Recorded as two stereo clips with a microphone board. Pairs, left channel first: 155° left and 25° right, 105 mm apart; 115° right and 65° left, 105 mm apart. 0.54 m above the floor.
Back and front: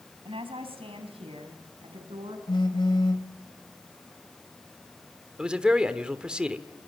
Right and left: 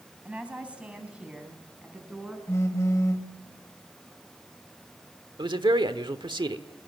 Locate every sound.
0.2 s a woman speaking: 10° right, 4 m
2.5 s a phone buzzing: 170° right, 2.5 m
5.4 s a man speaking: 55° left, 1.3 m